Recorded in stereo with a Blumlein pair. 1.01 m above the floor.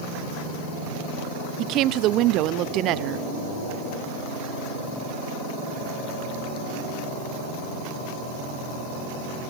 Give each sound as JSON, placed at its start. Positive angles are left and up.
{"t": 1.6, "sound": "a woman speaking", "azimuth_deg": -35, "distance_m": 0.9}